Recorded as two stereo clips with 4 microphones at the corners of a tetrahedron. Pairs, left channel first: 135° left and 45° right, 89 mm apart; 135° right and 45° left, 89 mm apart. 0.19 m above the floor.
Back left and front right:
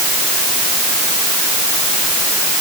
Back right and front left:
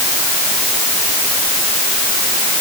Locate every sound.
Only background noise.